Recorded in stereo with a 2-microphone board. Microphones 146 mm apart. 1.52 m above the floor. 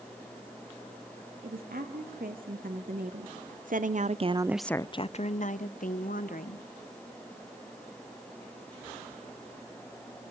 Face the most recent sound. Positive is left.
turn(degrees=75)  # may be behind; listen again after turning